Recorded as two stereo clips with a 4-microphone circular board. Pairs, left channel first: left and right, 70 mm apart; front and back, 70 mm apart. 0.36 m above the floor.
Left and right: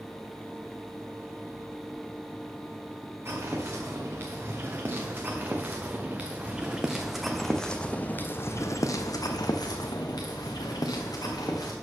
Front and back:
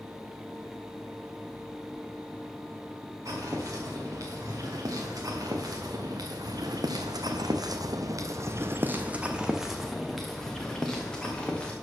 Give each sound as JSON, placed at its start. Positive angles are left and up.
{"t": 3.2, "sound": "footsteps", "azimuth_deg": -140, "distance_m": 3.0}